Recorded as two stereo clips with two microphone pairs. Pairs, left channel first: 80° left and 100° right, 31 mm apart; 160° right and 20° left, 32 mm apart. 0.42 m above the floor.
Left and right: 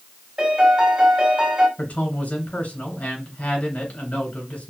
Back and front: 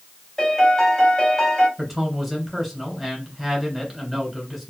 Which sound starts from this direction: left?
A man speaking, at 1.8 s.